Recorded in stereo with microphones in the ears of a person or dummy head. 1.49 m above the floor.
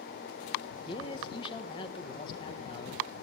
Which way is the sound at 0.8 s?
30° left (ahead or behind).